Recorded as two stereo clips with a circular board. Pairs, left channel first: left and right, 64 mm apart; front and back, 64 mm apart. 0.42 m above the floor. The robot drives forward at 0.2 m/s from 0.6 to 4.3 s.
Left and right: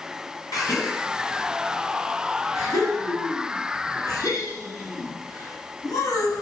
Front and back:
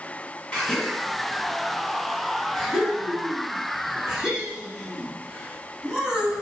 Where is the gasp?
70° left, 1.6 m; by 6.4 s 100° left, 1.5 m.